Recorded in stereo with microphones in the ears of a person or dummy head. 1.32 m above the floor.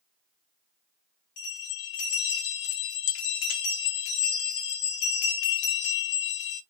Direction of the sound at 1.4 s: 80° left.